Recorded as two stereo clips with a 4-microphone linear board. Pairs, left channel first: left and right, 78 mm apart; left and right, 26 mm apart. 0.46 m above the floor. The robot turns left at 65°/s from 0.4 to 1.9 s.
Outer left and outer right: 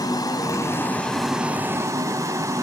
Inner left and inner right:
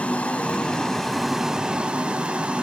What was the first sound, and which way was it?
Running water, 55° left.